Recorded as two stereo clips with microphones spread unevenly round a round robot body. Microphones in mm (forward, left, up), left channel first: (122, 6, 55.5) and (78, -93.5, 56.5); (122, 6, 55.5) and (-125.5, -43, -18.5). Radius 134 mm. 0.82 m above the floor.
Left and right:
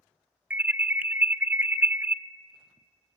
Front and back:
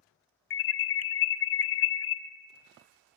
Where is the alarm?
40° right, 1.4 m.